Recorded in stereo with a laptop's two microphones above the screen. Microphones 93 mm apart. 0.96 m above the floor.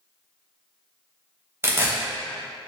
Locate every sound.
1.6 s tearing paper: 25° right (ahead or behind), 0.6 m